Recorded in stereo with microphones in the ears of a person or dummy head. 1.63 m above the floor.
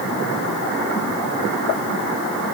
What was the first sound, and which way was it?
Only background noise.